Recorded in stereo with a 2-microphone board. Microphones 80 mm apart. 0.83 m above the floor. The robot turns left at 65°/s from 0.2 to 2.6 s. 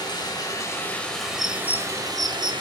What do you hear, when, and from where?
0.0 s running water: 70° left, 2.5 m; by 2.6 s 85° right, 2.5 m
1.4 s a bird: 5° left (ahead or behind), 0.6 m; by 2.5 s 70° right (ahead or behind), 0.6 m